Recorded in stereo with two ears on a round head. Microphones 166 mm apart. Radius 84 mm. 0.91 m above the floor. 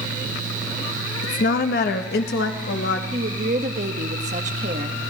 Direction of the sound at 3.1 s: 40° right (ahead or behind).